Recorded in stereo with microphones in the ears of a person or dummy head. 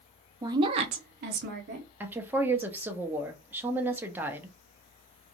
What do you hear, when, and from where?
0.4 s a woman speaking: 25° right (ahead or behind), 0.7 m; by 1.9 s 60° right (ahead or behind), 1.1 m
2.0 s a woman speaking: 15° right (ahead or behind), 0.7 m